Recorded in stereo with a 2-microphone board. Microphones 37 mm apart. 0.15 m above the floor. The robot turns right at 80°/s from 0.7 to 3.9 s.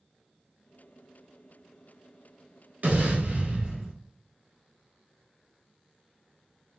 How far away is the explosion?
About 1.1 m.